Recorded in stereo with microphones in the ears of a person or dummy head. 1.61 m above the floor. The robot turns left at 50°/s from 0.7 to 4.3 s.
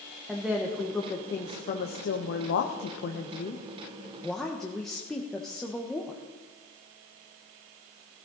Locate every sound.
0.3 s a woman speaking: straight behind, 1.3 m; by 6.2 s straight ahead, 1.3 m